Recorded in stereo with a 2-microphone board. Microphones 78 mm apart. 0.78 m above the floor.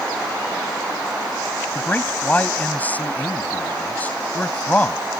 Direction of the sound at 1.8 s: 20° left (ahead or behind).